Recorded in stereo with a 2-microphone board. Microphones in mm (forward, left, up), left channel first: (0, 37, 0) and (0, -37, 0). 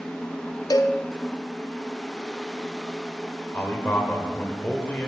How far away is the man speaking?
About 2 m.